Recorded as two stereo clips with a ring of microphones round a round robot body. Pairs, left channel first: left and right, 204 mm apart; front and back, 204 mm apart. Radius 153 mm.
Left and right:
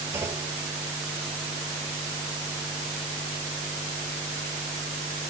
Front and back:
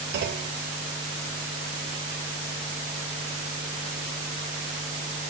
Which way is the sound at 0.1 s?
170° right.